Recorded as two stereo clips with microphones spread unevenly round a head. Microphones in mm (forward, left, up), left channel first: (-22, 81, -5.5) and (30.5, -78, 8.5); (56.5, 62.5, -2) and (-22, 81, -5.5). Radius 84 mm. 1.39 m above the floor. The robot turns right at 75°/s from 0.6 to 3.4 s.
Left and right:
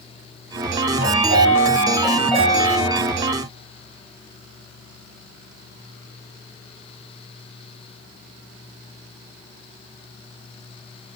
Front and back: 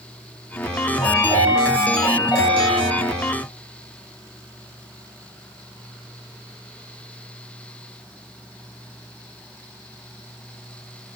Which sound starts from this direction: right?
A chime, at 1.0 s.